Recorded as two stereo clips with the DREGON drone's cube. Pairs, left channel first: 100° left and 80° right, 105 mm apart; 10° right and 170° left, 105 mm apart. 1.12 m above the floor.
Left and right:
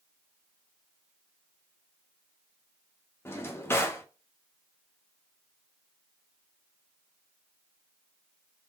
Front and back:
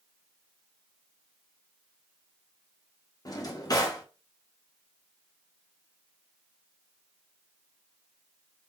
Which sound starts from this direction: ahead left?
A drawer, at 3.2 s.